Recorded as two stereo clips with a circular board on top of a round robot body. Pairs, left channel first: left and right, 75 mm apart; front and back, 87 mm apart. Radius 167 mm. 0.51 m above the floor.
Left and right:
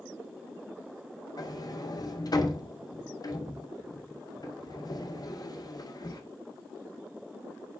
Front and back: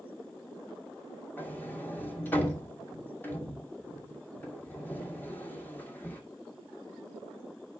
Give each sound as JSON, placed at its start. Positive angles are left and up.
{"t": 1.4, "sound": "a sliding door", "azimuth_deg": 65, "distance_m": 2.5}